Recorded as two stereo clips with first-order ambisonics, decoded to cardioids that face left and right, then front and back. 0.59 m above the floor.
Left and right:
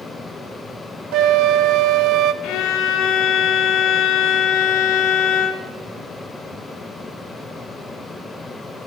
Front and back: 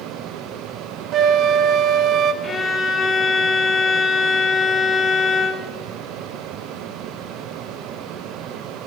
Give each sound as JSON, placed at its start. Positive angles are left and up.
{"t": 1.1, "sound": "a flute", "azimuth_deg": -130, "distance_m": 0.7}
{"t": 2.4, "sound": "a violin", "azimuth_deg": 75, "distance_m": 1.6}